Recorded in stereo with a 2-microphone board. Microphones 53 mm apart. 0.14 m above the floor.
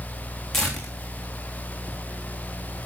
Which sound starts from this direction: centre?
Tearing paper, at 0.5 s.